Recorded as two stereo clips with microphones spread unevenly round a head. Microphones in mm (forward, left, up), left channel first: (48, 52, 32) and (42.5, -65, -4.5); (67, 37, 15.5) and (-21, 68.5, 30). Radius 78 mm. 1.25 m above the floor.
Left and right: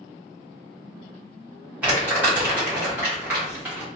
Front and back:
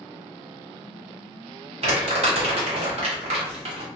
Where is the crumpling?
165° right, 1.0 m.